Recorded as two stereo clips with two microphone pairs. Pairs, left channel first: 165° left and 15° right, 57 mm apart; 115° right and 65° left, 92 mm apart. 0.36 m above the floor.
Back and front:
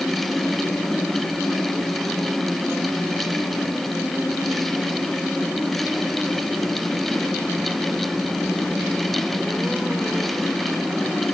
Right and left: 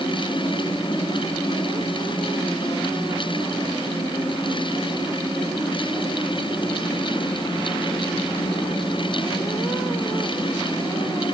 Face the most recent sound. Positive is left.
No sound to turn to.